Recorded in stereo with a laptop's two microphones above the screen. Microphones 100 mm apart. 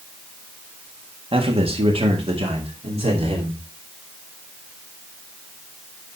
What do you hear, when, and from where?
1.3 s a man speaking: 60° right (ahead or behind), 1.6 m; by 3.6 s 65° right (ahead or behind), 3 m